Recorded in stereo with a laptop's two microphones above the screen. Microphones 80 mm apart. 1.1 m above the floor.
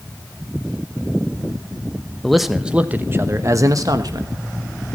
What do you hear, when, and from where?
2.2 s a man speaking: 5° left (ahead or behind), 0.9 m; by 4.3 s 65° right (ahead or behind), 1.3 m